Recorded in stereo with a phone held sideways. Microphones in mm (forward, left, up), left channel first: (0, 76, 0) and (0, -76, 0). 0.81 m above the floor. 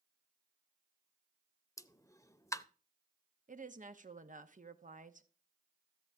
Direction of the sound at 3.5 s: 60° right (ahead or behind).